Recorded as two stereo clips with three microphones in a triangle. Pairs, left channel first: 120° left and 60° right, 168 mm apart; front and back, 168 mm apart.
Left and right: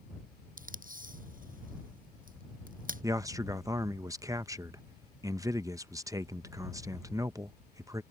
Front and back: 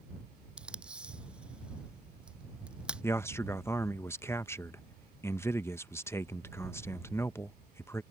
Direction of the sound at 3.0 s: 45° right.